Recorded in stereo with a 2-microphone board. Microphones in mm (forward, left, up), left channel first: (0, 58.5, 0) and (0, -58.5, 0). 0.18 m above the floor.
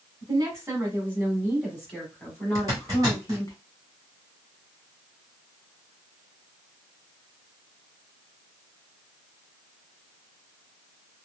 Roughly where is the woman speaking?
Right.